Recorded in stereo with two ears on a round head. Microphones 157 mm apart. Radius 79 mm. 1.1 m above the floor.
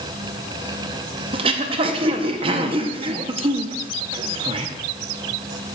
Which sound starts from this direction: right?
Throat clearing, at 1.3 s.